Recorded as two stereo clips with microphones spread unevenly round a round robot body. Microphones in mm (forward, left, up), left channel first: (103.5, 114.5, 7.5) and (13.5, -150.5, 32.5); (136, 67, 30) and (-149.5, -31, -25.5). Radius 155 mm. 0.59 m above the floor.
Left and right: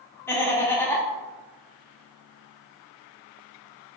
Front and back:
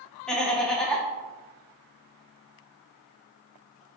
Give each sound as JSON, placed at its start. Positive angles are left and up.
{"t": 0.3, "sound": "laughter", "azimuth_deg": 130, "distance_m": 0.6}